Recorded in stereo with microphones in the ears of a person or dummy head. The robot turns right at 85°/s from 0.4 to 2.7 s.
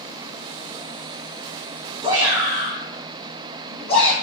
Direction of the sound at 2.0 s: 30° right (ahead or behind).